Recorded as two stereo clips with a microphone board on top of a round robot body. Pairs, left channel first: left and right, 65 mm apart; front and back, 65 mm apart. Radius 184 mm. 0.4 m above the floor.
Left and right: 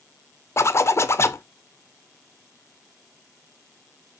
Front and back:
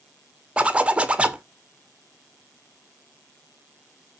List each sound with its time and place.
0.6 s a zipper: 115° left, 1.3 m